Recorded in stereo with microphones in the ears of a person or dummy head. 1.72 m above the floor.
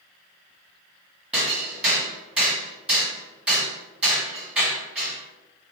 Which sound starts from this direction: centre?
Hammering, at 1.3 s.